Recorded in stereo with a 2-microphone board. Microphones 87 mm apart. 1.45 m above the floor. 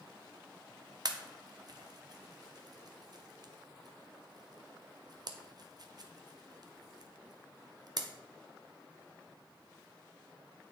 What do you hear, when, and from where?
1.1 s a pop: 50° right (ahead or behind), 0.7 m